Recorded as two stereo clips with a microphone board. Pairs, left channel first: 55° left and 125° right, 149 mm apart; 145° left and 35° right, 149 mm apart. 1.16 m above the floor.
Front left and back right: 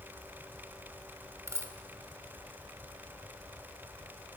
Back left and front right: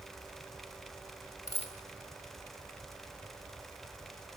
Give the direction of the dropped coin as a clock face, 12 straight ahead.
6 o'clock.